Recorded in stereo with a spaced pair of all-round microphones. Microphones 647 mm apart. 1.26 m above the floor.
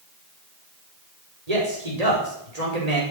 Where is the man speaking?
80° right, 5.5 m.